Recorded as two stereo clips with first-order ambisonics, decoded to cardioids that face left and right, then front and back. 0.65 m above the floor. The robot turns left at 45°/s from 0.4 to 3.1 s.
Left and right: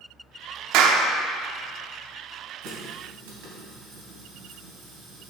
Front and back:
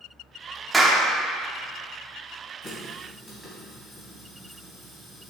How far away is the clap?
About 0.9 m.